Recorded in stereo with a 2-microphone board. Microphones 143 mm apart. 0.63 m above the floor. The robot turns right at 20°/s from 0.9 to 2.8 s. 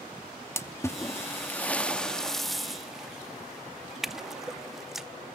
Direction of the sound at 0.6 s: 20° left (ahead or behind).